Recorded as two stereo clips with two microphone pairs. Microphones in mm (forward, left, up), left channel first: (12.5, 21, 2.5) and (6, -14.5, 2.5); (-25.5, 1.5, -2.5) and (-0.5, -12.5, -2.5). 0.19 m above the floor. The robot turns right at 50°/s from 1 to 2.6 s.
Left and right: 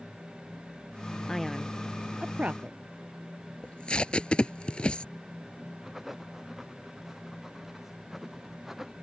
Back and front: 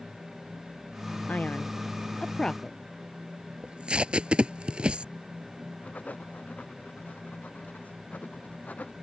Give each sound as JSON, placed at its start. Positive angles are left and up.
{"t": 1.3, "sound": "a man speaking", "azimuth_deg": 155}
{"t": 3.6, "sound": "tape being pulled", "azimuth_deg": 20}
{"t": 5.8, "sound": "writing", "azimuth_deg": 175}